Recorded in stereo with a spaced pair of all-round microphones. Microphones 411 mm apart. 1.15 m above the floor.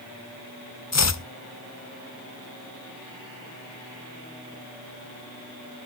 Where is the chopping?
45° left (ahead or behind), 0.6 m.